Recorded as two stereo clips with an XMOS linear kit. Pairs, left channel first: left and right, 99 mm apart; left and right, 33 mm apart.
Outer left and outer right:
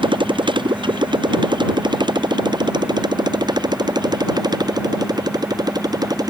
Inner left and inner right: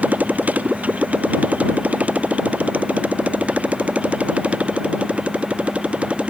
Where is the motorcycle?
55° right (ahead or behind); by 6.3 s 40° right (ahead or behind).